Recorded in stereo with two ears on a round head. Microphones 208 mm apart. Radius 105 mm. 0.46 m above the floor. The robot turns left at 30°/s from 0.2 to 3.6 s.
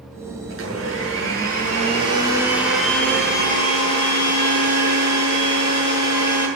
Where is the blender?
110° right, 7.5 m; by 6.5 s 155° left, 7.5 m.